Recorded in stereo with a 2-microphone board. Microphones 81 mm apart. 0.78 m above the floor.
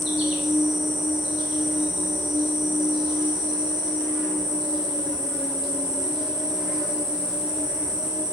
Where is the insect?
10° right (ahead or behind), 0.7 m.